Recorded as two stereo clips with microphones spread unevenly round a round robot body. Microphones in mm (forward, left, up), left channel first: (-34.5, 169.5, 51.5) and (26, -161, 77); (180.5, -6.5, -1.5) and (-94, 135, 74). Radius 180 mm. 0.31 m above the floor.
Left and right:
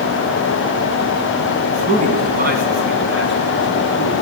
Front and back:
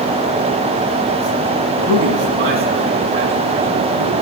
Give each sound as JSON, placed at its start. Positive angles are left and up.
{"t": 1.8, "sound": "a man speaking", "azimuth_deg": -150, "distance_m": 4.0}